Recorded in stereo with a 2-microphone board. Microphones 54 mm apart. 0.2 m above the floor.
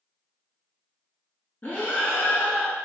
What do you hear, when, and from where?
1.6 s breathing: 35° left (ahead or behind), 0.8 m